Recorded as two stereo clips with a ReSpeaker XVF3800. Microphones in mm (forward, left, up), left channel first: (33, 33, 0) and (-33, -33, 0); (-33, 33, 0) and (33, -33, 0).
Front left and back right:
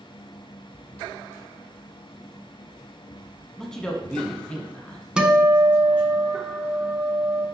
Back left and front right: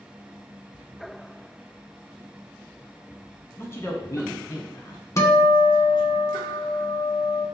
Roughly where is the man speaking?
Behind left.